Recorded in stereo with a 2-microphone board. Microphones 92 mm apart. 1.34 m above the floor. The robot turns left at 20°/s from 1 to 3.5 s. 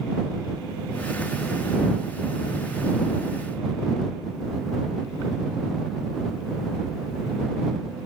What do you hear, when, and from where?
Only background noise.